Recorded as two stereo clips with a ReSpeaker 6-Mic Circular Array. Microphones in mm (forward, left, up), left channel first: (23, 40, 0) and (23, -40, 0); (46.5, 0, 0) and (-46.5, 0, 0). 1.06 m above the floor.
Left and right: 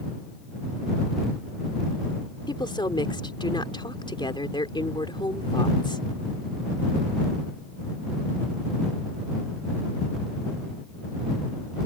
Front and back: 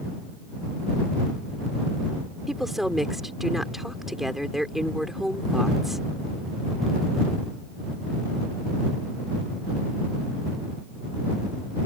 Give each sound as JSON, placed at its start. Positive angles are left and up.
{"t": 2.5, "sound": "a woman speaking", "azimuth_deg": 95}